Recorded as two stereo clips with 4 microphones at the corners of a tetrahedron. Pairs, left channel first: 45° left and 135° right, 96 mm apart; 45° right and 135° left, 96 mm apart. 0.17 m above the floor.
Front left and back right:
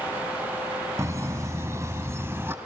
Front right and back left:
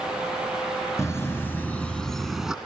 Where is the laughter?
90° right, 1.9 m; by 2.5 s 150° right, 1.4 m.